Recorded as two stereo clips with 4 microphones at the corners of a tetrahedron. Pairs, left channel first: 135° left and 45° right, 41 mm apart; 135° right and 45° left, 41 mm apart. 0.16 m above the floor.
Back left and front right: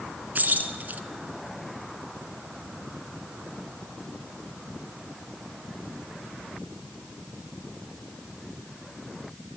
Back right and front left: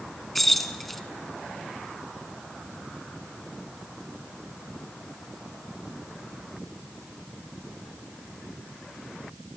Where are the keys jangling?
50° right, 0.9 m.